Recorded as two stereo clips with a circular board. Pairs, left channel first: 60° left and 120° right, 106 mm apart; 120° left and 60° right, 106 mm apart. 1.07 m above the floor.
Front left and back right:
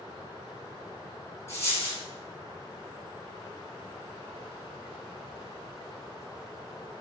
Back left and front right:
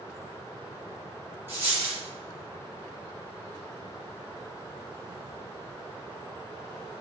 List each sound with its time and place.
1.5 s a dropped coin: 5° left, 1.3 m